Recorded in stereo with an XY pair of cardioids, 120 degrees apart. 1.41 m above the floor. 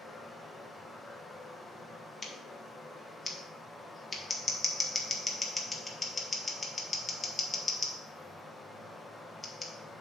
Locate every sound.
0.0 s running water: 10° left, 1.3 m
2.2 s scissors: 20° left, 1.5 m